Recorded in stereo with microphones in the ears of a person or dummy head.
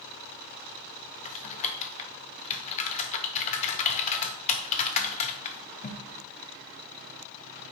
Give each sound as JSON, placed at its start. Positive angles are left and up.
{"t": 1.2, "sound": "typing on a keyboard", "side_deg": 35, "distance_m": 0.7}